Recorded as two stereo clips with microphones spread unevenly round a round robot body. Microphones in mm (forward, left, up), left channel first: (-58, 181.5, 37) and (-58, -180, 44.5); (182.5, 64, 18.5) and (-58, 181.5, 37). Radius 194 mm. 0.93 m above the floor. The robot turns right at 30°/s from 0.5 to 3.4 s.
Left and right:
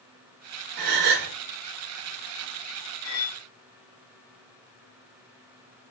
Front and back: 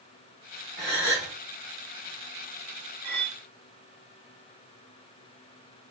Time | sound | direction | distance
0.8 | a gasp | 115° right | 1.1 m
3.0 | cutlery clinking | 145° left | 1.5 m